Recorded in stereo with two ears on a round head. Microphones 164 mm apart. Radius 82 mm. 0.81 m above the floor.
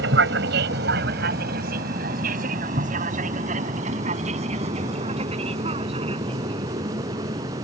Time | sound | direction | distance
0.0 | an aircraft | 65° right (ahead or behind) | ?